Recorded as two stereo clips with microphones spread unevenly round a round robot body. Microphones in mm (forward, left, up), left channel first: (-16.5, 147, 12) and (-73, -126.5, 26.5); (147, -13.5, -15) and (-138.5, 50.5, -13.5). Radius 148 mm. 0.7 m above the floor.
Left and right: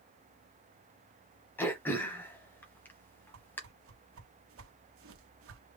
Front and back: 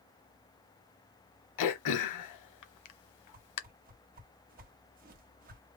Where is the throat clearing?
5° right, 0.9 m.